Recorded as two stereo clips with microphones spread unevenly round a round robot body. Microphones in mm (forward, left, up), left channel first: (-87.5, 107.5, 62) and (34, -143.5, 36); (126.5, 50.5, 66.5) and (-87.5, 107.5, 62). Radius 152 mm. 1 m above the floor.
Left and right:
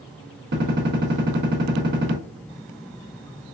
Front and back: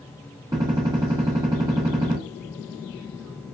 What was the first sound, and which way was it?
A gunshot, 120° right.